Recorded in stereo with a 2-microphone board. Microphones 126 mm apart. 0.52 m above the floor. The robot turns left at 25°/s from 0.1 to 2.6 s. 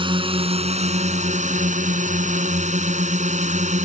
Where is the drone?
40° right; by 3.9 s 105° right.